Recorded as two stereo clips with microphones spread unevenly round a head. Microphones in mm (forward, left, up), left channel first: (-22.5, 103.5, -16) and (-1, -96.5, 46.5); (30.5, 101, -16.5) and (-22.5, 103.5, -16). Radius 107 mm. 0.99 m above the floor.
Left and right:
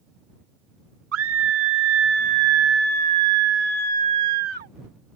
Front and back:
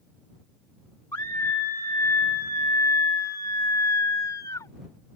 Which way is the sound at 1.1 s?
60° right.